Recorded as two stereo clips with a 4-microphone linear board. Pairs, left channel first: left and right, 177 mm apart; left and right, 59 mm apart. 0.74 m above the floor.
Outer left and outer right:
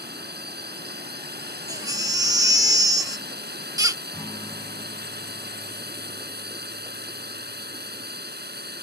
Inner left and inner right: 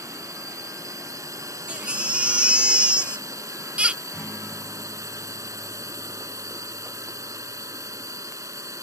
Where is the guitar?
20° left (ahead or behind).